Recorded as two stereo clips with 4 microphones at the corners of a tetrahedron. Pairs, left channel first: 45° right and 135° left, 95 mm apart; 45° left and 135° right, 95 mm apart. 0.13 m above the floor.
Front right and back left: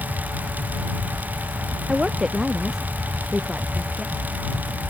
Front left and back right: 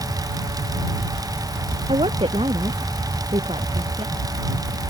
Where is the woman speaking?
145° right.